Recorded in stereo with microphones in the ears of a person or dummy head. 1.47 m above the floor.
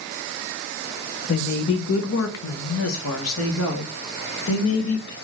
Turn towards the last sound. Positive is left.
turn(degrees=70)  # may be behind; listen again after turning